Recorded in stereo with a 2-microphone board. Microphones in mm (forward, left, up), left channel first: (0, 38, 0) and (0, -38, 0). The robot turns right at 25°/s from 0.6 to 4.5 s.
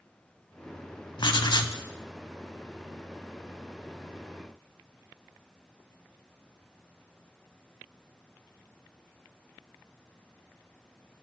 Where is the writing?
70° left (ahead or behind), 0.5 m; by 1.8 s 60° left (ahead or behind), 0.5 m.